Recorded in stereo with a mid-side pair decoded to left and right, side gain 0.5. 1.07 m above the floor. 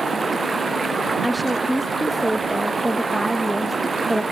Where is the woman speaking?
Straight ahead.